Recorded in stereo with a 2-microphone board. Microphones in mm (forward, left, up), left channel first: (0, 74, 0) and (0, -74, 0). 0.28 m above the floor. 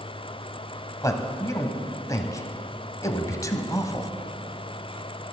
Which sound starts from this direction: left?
A man speaking, at 1.0 s.